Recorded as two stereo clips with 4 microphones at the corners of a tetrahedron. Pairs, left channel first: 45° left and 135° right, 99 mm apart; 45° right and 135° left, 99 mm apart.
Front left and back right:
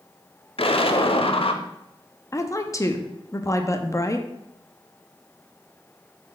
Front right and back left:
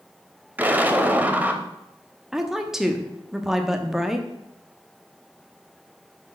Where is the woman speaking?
55° left, 0.8 m.